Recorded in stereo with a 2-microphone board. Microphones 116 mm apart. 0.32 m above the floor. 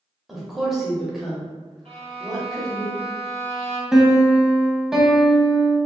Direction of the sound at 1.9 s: 65° right (ahead or behind).